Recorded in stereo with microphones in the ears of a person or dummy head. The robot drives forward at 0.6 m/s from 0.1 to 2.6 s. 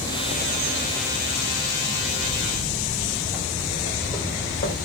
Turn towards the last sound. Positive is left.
turn(degrees=25)  # may be behind; listen again after turning